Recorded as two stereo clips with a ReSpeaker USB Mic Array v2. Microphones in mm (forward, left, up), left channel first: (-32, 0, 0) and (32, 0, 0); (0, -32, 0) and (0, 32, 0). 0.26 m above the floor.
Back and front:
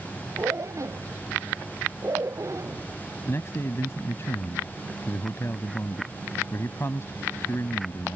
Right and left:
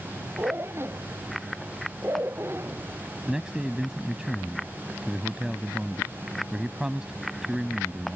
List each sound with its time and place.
0.4 s a zipper: 40° left
3.3 s a man speaking: 165° left